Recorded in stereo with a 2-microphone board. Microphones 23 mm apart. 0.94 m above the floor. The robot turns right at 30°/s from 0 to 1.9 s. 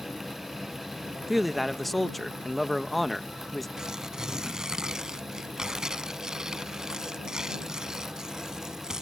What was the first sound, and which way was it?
A man speaking, 10° right (ahead or behind).